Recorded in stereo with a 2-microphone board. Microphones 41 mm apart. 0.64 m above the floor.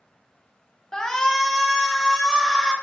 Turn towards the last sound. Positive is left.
turn(degrees=0)  # may be behind; listen again after turning